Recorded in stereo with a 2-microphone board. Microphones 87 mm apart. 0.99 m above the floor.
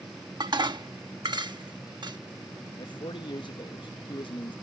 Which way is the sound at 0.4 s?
55° right (ahead or behind).